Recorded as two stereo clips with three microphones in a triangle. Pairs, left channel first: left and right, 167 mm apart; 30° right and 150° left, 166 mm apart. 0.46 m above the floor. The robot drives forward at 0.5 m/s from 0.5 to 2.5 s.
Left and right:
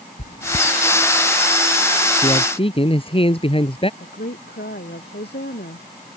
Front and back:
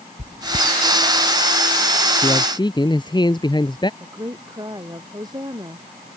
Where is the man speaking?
35° left.